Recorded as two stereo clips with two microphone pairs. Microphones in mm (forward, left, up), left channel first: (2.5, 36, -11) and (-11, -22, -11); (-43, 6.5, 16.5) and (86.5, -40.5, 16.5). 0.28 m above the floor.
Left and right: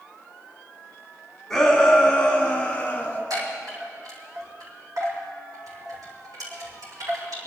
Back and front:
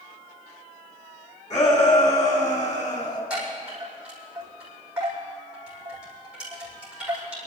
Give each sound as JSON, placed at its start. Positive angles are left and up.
{"t": 1.5, "sound": "a shout", "azimuth_deg": 160, "distance_m": 3.0}
{"t": 3.3, "sound": "a chime", "azimuth_deg": -100, "distance_m": 6.5}